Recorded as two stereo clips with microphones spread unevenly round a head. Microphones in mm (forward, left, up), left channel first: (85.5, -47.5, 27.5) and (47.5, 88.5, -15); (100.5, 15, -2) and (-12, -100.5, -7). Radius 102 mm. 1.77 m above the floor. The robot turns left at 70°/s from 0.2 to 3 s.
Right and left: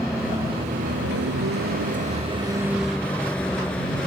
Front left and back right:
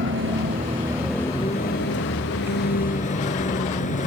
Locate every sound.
0.0 s a vehicle: 160° right; by 4.1 s 5° left